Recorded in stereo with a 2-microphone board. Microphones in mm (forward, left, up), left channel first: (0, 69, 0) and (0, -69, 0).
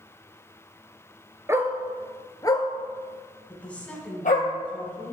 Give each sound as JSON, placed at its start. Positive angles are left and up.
{"t": 1.5, "sound": "a dog barking", "side_deg": -20, "distance_m": 0.8}
{"t": 3.5, "sound": "a woman speaking", "side_deg": 10, "distance_m": 1.5}